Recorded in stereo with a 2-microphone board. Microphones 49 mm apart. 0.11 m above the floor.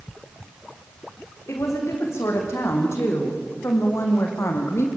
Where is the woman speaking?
65° left (ahead or behind), 7 m.